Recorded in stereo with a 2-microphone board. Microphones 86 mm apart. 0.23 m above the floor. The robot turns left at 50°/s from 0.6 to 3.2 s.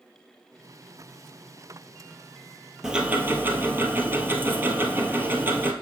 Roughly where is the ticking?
Centre.